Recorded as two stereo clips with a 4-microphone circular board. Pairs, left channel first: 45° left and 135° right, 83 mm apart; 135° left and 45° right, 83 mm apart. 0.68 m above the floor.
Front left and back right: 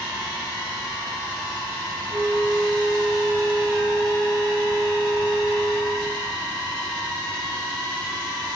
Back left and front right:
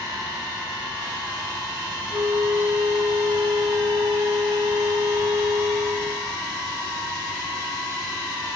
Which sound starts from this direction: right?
A flute, at 2.1 s.